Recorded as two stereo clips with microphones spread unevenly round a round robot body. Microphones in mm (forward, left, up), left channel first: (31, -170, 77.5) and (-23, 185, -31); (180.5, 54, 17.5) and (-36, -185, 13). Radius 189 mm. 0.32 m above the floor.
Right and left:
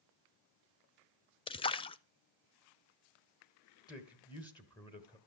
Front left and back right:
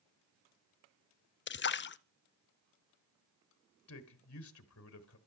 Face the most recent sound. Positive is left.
turn(degrees=5)